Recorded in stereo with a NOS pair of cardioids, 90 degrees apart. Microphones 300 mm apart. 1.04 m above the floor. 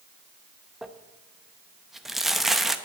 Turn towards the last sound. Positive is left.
turn(degrees=0)